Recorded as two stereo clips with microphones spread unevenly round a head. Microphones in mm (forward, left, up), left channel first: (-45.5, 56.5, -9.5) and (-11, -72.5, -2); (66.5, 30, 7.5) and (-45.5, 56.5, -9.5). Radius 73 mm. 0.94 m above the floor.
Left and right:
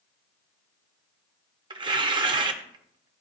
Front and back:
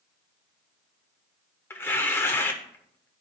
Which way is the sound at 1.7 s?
60° right.